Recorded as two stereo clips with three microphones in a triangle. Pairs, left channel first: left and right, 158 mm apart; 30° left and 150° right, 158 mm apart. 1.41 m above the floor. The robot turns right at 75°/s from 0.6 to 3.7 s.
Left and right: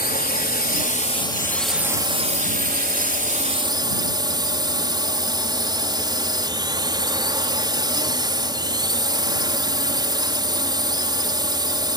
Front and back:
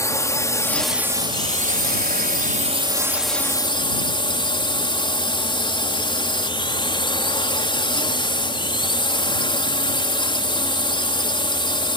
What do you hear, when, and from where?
0.0 s a drone: 100° left; by 12.0 s 30° right